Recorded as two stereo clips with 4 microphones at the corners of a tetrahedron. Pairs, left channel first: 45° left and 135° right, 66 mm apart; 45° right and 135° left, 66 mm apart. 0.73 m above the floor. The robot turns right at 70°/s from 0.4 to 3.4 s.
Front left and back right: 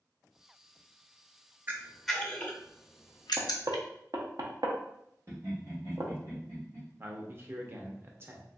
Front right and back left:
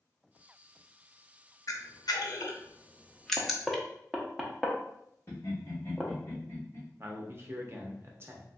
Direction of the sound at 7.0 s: 175° left.